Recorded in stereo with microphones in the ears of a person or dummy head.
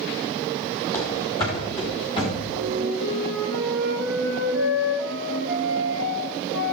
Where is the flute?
80° left, 7.5 m.